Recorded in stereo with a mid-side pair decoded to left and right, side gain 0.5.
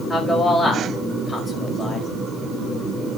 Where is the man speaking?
20° left, 5 m.